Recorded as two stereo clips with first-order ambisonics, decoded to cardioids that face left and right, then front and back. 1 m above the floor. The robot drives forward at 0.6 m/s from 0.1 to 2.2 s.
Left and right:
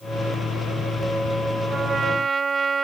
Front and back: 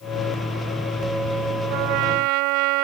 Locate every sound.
1.7 s a trumpet: 165° right